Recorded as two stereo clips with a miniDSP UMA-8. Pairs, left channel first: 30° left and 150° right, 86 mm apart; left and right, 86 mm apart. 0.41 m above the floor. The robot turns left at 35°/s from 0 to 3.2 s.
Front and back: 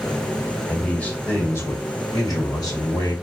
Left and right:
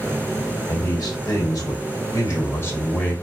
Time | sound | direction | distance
0.7 | a man speaking | 110° left | 1.9 m